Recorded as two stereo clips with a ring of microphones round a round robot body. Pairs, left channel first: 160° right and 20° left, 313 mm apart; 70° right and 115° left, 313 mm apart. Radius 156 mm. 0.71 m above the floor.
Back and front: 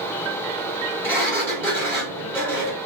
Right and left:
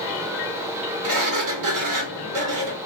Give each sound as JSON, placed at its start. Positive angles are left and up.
{"t": 1.0, "sound": "a sliding door", "azimuth_deg": 120, "distance_m": 1.4}